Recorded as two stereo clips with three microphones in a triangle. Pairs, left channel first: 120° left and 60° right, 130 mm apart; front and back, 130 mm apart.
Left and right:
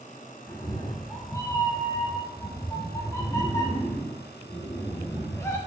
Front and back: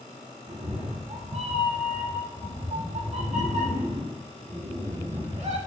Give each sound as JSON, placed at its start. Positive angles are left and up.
{"t": 0.5, "sound": "a cat meowing", "azimuth_deg": 180, "distance_m": 0.6}